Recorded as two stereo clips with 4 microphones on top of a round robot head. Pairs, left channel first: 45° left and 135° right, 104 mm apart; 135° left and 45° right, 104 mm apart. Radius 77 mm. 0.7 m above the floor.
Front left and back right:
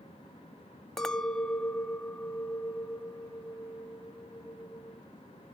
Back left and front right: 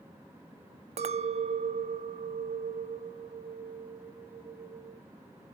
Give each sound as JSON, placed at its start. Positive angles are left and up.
{"t": 1.0, "sound": "a clink", "azimuth_deg": -40, "distance_m": 0.6}